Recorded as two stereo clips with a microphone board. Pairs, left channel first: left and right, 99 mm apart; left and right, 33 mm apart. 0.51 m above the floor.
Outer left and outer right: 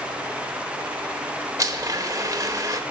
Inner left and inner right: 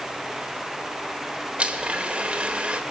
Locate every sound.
1.6 s a blender: 35° right (ahead or behind), 1.1 m